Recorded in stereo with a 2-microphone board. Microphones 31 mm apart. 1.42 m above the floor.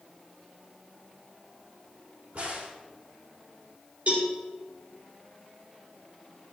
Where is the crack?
55° right (ahead or behind), 3 m.